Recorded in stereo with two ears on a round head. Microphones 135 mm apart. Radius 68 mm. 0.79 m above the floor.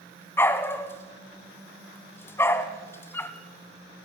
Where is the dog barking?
15° left (ahead or behind), 1.6 m.